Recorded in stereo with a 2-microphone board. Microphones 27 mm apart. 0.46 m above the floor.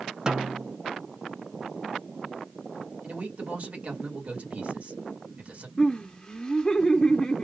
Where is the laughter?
35° left (ahead or behind), 1.0 m.